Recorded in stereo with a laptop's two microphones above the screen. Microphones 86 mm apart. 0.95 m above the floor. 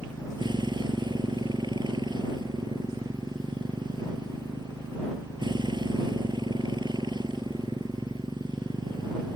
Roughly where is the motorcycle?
Right.